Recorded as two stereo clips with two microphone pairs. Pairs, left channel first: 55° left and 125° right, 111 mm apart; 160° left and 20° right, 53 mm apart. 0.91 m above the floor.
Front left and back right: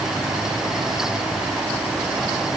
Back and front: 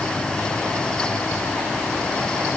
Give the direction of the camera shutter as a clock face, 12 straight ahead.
I don't hear a camera shutter.